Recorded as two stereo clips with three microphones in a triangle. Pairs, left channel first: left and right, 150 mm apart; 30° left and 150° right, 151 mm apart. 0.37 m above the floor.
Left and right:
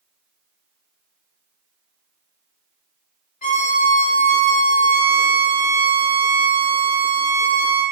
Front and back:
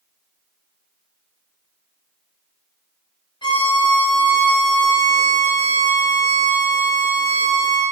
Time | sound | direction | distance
3.4 | a violin | 85° left | 0.6 m